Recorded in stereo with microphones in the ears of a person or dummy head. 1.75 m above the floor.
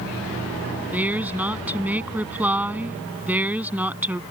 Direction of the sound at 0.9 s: 5° right (ahead or behind).